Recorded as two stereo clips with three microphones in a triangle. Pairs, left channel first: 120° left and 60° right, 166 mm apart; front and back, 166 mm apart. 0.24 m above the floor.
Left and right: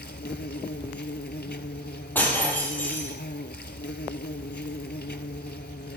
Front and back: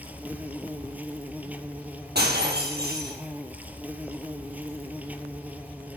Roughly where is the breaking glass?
Behind.